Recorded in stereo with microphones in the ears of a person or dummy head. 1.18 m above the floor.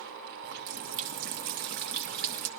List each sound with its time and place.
0.4 s a running tap: 50° right (ahead or behind), 0.7 m